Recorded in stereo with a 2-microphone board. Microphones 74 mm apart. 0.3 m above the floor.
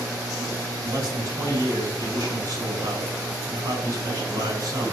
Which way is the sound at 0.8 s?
55° right (ahead or behind).